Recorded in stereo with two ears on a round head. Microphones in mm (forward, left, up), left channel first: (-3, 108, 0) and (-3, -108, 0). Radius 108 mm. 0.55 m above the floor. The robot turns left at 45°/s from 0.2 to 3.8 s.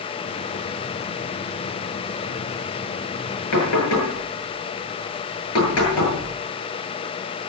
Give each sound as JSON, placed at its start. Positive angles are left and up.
{"t": 3.5, "sound": "knocking", "side_deg": 80, "distance_m": 9.5}